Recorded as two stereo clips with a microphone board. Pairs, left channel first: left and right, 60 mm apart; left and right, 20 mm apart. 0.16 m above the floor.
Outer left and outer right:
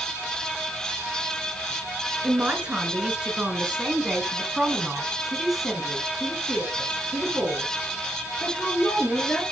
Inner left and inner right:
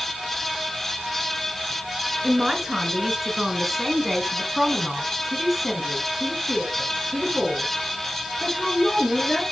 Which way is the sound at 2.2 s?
20° right (ahead or behind).